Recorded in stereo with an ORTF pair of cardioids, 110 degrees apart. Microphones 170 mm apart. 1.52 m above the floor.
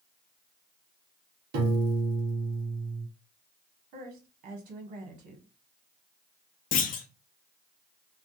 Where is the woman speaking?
65° right, 1.2 m.